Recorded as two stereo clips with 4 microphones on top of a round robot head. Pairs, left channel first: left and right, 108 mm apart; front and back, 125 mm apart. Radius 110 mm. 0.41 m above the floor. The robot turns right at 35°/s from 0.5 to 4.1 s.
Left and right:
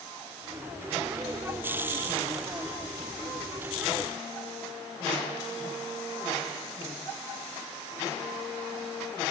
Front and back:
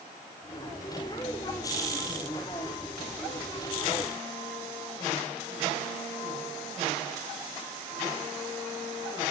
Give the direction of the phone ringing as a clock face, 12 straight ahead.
No phone ringing in this recording.